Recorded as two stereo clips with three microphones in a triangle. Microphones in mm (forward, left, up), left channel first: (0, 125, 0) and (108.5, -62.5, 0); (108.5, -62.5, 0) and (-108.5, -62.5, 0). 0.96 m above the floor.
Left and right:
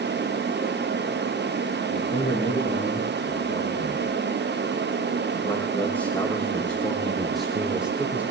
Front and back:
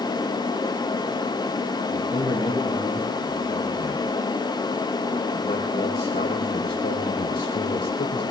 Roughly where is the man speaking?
Left.